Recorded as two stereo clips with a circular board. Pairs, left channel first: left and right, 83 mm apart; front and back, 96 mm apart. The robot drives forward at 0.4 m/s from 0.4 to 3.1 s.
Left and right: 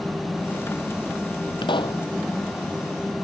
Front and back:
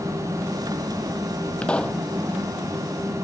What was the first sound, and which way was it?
A pop, 80° left.